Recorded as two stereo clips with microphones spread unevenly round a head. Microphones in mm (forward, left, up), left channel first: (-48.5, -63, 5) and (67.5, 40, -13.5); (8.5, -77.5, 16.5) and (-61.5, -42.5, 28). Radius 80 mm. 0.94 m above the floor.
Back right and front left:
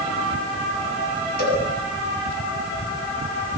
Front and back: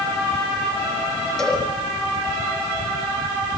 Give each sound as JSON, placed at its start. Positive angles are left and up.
{"t": 1.4, "sound": "a cowbell", "azimuth_deg": -110, "distance_m": 9.0}